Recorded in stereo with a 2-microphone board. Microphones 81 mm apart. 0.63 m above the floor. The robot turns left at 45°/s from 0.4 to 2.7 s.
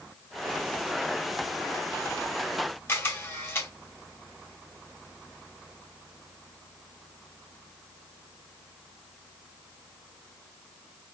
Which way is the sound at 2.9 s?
25° left (ahead or behind).